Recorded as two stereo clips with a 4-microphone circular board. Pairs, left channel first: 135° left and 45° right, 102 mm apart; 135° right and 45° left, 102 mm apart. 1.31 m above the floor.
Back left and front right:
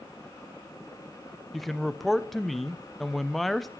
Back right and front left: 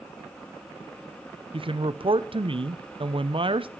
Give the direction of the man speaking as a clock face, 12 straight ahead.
10 o'clock.